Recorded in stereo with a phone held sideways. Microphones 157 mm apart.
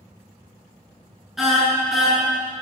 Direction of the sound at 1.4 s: 5° right (ahead or behind).